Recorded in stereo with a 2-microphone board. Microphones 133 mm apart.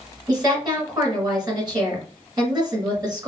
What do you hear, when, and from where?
0.3 s a woman speaking: 30° right (ahead or behind), 1.9 m